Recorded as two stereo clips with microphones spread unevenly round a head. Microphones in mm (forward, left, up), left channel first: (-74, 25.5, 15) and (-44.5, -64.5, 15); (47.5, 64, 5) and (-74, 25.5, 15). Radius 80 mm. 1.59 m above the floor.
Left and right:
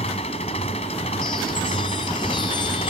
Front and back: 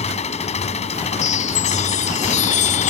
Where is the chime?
45° left.